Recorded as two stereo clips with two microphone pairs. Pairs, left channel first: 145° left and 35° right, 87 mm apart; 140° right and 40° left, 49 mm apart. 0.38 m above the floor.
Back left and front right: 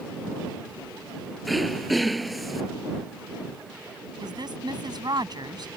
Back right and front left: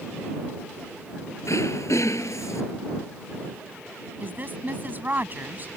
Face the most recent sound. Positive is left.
turn(degrees=-10)